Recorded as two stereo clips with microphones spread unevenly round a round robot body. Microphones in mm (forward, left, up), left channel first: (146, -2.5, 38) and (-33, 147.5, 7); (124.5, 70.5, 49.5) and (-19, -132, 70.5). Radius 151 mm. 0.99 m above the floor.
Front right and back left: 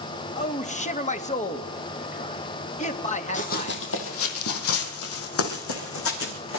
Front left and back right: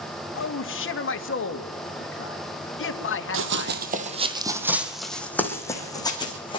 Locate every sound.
0.3 s a man speaking: 20° left, 2 m
3.3 s running footsteps: 100° right, 2 m; by 6.6 s 15° right, 4.5 m